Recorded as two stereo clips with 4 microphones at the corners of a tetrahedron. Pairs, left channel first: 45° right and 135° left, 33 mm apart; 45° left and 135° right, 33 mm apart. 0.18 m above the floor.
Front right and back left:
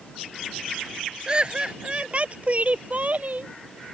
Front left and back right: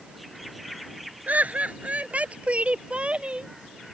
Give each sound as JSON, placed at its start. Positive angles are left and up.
{"t": 1.3, "sound": "laughter", "azimuth_deg": -165}